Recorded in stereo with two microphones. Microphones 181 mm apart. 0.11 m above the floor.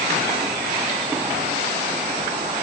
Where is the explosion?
I don't hear an explosion.